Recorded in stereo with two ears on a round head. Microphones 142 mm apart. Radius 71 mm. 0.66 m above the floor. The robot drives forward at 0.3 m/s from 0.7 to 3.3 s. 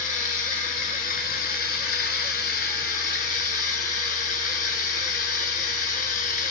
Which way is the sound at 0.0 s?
55° left (ahead or behind).